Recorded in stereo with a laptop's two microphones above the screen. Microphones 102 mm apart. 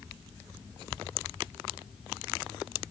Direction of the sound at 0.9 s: 65° right (ahead or behind).